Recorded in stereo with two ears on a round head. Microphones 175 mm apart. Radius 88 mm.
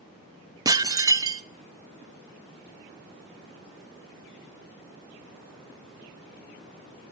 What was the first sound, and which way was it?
Dishes clattering, 20° right (ahead or behind).